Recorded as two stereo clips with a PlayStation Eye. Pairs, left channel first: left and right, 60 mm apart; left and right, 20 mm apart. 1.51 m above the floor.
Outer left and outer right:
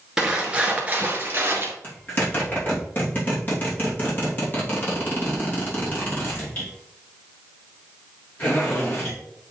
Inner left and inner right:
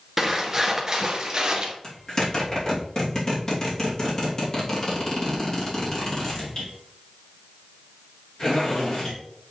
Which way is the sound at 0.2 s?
10° right (ahead or behind).